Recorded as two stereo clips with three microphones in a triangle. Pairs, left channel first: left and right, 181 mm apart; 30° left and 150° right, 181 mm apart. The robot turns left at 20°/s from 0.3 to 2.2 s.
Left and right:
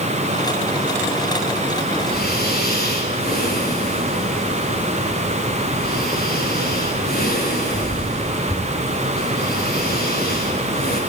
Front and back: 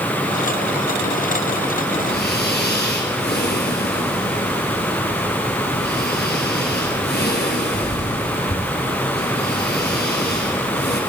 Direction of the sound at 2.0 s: 60° left.